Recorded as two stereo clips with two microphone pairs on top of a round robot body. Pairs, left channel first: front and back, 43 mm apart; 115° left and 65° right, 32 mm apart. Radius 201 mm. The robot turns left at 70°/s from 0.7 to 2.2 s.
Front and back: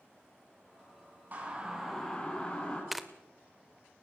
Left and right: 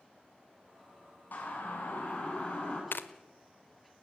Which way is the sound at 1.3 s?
135° left.